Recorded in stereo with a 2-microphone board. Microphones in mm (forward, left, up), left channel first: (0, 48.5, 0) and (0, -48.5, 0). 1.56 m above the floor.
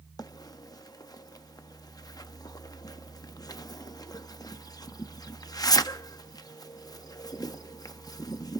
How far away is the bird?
About 0.5 m.